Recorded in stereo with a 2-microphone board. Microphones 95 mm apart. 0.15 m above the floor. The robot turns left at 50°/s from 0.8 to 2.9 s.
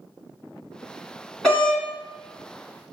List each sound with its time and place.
1.4 s a doorbell: centre (ahead or behind), 1.5 m; by 1.8 s 10° left (ahead or behind), 1.5 m